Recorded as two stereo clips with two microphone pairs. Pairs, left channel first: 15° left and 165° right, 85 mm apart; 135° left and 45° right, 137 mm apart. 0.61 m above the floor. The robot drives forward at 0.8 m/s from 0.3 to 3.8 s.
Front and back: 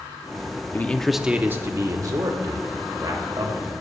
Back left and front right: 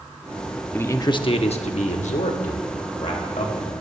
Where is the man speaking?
70° left, 0.7 m; by 3.7 s 170° left, 2.5 m.